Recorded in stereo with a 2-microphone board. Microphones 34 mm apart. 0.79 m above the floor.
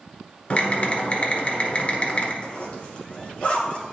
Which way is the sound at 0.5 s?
35° left (ahead or behind).